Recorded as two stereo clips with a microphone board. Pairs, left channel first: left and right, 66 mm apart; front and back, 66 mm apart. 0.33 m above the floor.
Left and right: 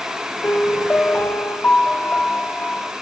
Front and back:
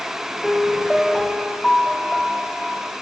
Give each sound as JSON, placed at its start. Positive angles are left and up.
{"t": 0.4, "sound": "a piano", "azimuth_deg": 85, "distance_m": 0.7}